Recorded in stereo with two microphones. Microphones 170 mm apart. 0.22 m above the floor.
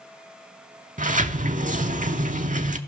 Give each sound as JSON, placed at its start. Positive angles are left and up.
{"t": 1.0, "sound": "a sliding door", "side_deg": -50, "distance_m": 0.5}